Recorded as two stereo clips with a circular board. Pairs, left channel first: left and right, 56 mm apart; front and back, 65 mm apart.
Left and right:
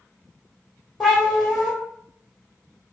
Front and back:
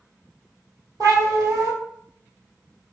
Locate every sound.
1.0 s a cat meowing: 175° left, 1.8 m